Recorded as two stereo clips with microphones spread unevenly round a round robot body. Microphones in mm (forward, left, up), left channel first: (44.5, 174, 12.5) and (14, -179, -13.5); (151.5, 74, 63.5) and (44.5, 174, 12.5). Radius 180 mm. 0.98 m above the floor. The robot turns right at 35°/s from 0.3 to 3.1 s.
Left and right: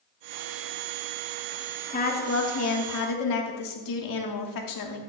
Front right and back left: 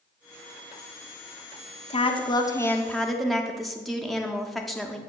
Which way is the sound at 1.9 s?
15° left.